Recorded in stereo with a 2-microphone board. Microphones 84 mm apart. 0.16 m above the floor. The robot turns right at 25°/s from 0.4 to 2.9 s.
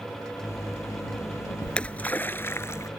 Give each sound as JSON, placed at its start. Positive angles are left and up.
{"t": 1.6, "sound": "a splash", "azimuth_deg": 10}